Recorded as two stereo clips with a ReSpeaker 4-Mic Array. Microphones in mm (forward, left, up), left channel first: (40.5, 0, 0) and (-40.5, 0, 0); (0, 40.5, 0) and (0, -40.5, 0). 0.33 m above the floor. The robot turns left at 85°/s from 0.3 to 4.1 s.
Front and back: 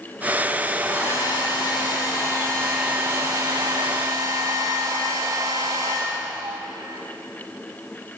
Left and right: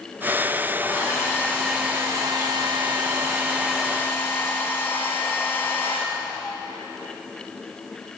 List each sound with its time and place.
0.8 s a hair dryer: 75° left, 6 m; by 6.6 s 155° left, 6 m